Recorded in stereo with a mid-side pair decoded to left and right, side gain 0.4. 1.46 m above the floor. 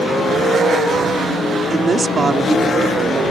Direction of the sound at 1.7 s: 40° right.